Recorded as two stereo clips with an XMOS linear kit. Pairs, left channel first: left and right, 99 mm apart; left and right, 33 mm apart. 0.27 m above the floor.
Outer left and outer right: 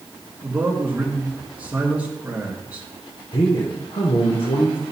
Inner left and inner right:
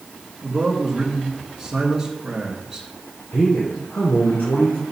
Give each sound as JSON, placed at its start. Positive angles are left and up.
{"t": 0.4, "sound": "a man speaking", "side_deg": -15, "distance_m": 3.0}
{"t": 3.3, "sound": "a man speaking", "side_deg": 70, "distance_m": 2.5}